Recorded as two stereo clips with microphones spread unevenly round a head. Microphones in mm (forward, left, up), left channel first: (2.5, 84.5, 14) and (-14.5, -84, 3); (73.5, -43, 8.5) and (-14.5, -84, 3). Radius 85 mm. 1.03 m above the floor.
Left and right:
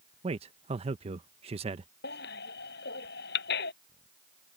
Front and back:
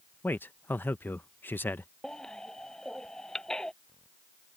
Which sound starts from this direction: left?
A baby crying, at 2.0 s.